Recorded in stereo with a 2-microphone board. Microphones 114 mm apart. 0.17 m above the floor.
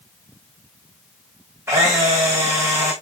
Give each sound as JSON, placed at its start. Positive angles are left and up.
{"t": 1.7, "sound": "a camera shutter", "side_deg": -25, "distance_m": 6.0}